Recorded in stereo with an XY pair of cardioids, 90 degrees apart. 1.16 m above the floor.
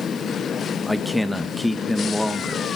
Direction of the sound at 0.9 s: Straight ahead.